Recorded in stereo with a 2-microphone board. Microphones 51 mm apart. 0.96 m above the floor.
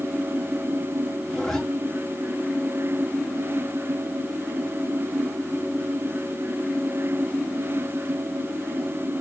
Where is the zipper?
5° left (ahead or behind), 1.5 m.